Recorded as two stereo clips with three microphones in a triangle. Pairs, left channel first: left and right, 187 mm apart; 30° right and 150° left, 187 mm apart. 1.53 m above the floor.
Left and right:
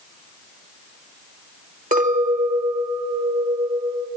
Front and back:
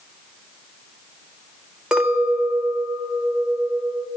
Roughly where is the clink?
Behind right.